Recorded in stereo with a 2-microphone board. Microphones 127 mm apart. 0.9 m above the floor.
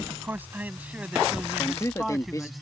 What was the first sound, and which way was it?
A man speaking, 20° right (ahead or behind).